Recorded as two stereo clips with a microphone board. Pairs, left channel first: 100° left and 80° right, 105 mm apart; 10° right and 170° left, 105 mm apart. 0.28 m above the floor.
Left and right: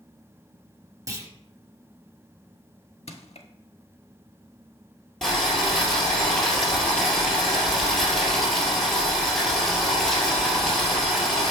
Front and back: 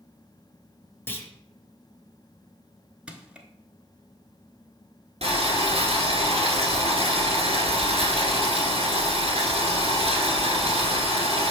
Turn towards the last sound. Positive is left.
turn(degrees=-175)